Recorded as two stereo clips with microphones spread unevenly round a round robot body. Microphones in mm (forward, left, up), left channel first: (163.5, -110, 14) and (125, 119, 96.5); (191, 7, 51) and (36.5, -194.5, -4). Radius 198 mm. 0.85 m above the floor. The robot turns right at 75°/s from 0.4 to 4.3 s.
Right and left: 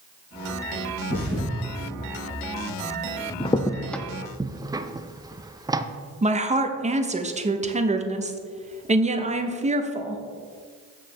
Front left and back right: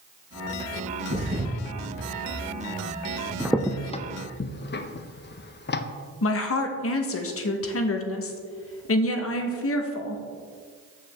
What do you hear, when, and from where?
1.1 s a thud: 130° left, 3.5 m; by 1.5 s 165° left, 3.5 m
3.4 s a crack: 60° right, 0.6 m; by 5.9 s 5° left, 0.6 m
6.2 s a woman speaking: 25° left, 1.0 m